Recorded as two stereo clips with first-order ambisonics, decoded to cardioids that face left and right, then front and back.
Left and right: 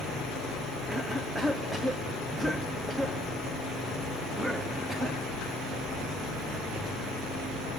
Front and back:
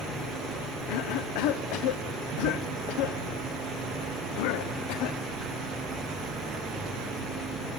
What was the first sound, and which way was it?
A cough, 5° right.